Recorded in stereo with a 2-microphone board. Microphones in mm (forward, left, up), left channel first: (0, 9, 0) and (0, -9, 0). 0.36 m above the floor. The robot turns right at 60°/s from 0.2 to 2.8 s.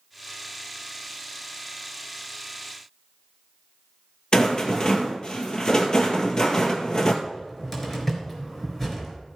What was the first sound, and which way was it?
A rattle, 45° left (ahead or behind).